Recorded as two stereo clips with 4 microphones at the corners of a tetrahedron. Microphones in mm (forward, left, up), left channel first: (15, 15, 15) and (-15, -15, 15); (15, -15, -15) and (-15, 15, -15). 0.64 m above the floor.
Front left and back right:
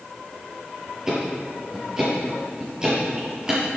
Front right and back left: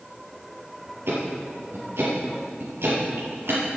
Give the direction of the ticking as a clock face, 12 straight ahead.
7 o'clock.